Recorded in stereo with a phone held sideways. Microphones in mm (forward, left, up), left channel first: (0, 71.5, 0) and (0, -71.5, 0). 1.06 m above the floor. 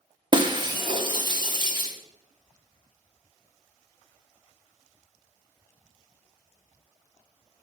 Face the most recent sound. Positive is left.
turn(degrees=-35)  # may be behind; listen again after turning